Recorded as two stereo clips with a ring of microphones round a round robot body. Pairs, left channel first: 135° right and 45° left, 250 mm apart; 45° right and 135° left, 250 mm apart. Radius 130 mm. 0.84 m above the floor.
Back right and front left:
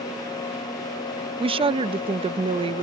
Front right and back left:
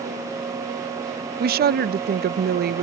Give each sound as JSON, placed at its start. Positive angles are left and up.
{"t": 1.4, "sound": "a woman speaking", "azimuth_deg": 105}